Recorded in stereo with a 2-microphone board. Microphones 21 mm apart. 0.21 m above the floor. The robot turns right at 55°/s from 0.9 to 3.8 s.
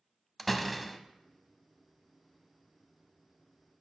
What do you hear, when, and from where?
0.4 s a door slam: 5° left (ahead or behind), 0.7 m; by 1.0 s centre (ahead or behind), 0.7 m